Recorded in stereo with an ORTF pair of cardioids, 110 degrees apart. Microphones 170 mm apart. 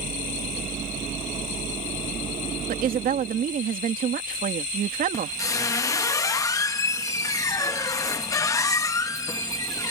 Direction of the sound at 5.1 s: 20° left.